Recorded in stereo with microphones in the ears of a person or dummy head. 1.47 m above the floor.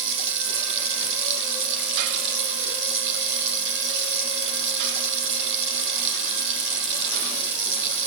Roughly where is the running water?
Right.